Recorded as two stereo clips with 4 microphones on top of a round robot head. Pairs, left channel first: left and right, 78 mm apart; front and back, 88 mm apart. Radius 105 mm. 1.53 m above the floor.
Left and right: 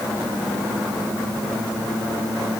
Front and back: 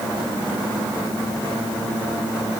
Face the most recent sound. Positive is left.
No sound to turn to.